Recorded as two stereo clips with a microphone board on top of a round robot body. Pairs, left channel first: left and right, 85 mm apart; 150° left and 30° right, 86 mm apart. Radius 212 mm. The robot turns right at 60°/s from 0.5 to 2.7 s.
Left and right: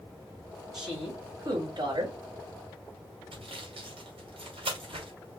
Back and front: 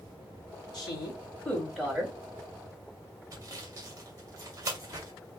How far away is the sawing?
About 2 m.